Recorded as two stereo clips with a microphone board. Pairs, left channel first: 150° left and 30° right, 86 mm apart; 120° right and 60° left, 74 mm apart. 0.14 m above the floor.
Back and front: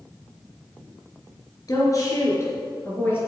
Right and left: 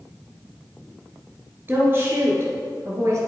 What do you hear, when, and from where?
1.7 s a woman speaking: 115° left, 2.5 m; by 3.2 s 95° left, 2.5 m